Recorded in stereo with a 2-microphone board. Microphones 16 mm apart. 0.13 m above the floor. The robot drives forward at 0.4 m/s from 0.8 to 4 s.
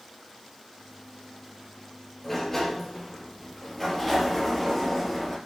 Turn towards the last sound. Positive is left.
turn(degrees=15)  # may be behind; listen again after turning